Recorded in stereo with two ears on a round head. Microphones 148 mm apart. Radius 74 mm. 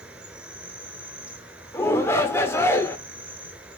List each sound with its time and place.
0.0 s an insect: 5° right (ahead or behind), 1.3 m
1.7 s a shout: 15° left (ahead or behind), 1.2 m